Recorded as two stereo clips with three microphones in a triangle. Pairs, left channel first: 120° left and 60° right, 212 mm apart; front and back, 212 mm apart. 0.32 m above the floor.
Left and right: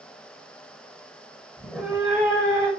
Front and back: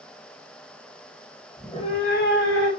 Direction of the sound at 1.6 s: 65° left.